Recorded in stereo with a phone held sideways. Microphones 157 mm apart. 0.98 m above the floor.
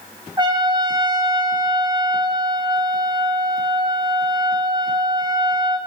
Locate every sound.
0.4 s a trumpet: 25° right (ahead or behind), 1.1 m